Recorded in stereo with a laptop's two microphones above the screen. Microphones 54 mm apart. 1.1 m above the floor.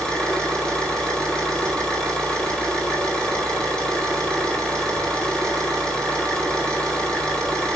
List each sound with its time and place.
0.0 s an engine running: 15° left (ahead or behind), 4 m